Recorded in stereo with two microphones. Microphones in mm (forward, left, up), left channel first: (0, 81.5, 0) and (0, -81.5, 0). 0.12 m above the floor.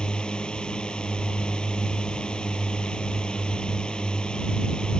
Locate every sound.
0.0 s a drone: 5° left (ahead or behind)